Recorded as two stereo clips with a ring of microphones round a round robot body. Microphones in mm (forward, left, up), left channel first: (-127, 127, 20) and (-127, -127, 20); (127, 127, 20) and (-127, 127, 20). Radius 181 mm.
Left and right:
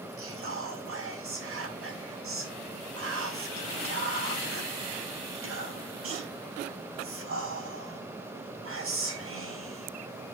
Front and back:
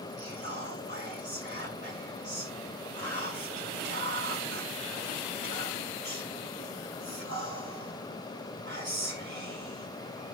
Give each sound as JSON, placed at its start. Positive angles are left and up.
{"t": 0.2, "sound": "whispering", "azimuth_deg": -120, "distance_m": 5.0}